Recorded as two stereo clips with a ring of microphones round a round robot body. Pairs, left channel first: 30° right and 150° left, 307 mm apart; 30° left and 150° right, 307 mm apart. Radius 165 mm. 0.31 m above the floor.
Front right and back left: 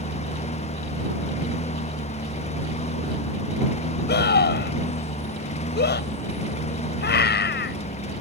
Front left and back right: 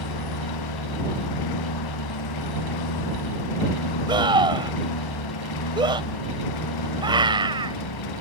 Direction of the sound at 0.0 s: 40° left.